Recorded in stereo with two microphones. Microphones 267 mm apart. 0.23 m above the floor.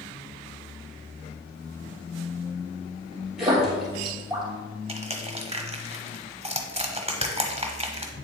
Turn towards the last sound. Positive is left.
turn(degrees=-25)  # may be behind; listen again after turning